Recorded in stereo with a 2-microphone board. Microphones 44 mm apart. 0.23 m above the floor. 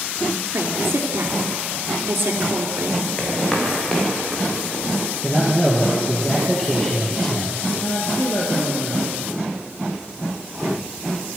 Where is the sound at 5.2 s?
15° left (ahead or behind), 5.5 m.